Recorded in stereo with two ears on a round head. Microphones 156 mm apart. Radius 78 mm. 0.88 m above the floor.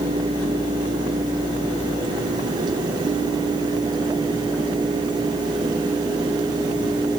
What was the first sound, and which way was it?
Only background noise.